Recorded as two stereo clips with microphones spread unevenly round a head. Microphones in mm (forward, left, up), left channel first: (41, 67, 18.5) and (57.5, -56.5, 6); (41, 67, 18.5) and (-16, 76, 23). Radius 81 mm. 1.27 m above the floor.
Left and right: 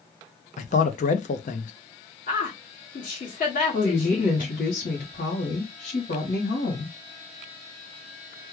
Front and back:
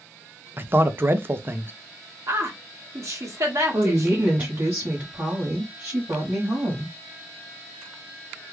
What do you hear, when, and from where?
0.6 s a man speaking: 125° left, 0.7 m
2.3 s a woman speaking: 145° left, 1.8 m
3.7 s a woman speaking: 125° left, 1.2 m